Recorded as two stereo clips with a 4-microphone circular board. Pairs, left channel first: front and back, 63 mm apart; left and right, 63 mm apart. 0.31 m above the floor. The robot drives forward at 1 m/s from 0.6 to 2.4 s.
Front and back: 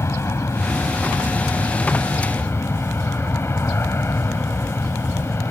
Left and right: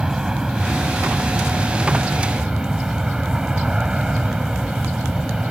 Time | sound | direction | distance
0.0 | an aircraft | 15° right | ?